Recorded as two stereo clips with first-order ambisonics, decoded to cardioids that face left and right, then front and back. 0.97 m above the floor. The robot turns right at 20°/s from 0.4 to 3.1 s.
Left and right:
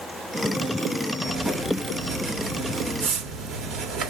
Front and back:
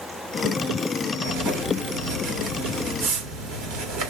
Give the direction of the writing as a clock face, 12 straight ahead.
6 o'clock.